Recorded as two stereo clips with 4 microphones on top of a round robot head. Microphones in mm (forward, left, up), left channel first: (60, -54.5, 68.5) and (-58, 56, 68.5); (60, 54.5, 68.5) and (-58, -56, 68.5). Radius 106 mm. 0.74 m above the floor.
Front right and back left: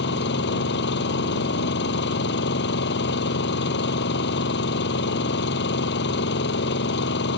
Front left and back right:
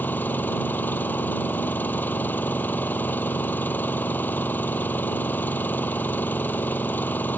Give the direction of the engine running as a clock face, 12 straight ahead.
1 o'clock.